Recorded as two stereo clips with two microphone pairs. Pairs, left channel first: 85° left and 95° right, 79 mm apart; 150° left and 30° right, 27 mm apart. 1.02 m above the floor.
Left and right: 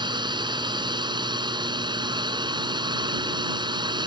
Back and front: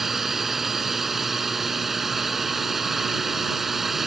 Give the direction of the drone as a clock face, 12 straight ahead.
4 o'clock.